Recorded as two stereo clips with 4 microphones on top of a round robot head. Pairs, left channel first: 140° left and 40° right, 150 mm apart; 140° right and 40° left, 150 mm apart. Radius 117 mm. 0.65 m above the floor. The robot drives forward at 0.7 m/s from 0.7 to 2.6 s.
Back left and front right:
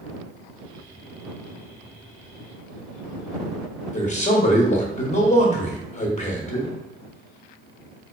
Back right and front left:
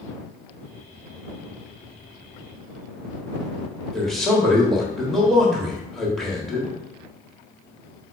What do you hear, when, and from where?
3.9 s a man speaking: 130° left, 1.2 m